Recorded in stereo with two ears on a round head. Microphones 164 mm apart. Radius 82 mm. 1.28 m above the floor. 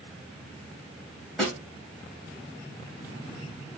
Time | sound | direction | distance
1.4 | a snare drum | centre (ahead or behind) | 2 m